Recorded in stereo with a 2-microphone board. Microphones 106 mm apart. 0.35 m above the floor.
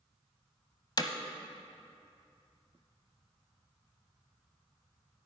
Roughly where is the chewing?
No chewing in this recording.